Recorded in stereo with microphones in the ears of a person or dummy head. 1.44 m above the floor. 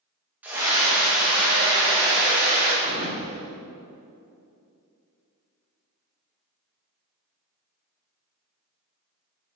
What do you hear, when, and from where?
0.4 s a scream: 5° right (ahead or behind), 1.5 m; by 2.7 s 30° right (ahead or behind), 5 m
2.8 s a thud: 30° right (ahead or behind), 1.9 m